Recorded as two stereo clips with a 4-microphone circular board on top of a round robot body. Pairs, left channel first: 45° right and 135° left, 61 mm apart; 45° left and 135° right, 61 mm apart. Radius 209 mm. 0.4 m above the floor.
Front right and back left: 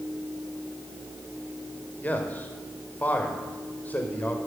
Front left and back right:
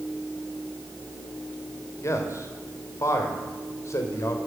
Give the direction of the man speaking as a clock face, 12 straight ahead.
11 o'clock.